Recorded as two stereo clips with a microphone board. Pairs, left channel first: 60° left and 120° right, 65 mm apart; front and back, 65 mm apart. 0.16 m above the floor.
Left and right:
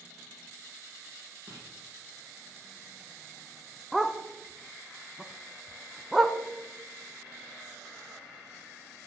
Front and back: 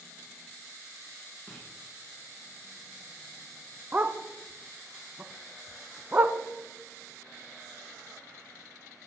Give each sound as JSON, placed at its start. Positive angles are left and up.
{"t": 1.5, "sound": "writing", "azimuth_deg": -105, "distance_m": 6.0}
{"t": 3.9, "sound": "a dog barking", "azimuth_deg": 155, "distance_m": 0.6}